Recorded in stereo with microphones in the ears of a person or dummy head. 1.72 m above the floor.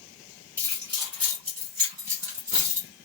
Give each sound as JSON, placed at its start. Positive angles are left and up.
{"t": 0.6, "sound": "keys jangling", "side_deg": -15, "distance_m": 0.9}